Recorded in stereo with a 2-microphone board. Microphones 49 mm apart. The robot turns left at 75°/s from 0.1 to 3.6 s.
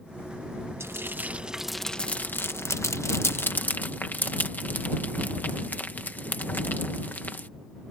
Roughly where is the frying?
Right.